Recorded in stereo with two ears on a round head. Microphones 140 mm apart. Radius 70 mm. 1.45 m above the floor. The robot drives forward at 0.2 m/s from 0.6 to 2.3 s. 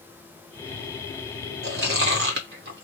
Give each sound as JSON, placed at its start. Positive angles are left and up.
{"t": 1.6, "sound": "chewing", "side_deg": -65, "distance_m": 1.4}